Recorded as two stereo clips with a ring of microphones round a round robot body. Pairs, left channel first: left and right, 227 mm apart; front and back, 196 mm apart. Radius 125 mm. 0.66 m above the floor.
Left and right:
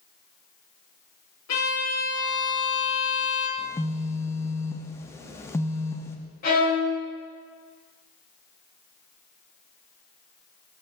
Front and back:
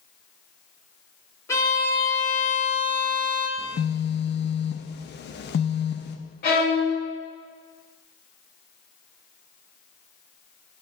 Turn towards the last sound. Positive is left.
turn(degrees=40)